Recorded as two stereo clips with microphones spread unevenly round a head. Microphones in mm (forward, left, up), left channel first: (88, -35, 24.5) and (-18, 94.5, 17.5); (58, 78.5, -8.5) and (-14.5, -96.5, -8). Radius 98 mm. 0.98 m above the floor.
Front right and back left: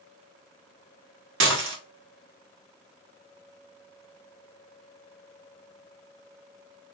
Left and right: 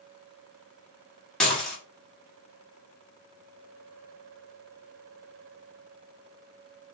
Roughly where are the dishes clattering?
Behind left.